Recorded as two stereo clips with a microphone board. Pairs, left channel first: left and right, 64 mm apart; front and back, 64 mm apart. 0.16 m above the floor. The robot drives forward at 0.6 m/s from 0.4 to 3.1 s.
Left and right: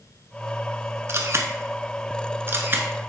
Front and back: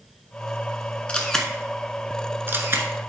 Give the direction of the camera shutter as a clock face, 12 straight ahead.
2 o'clock.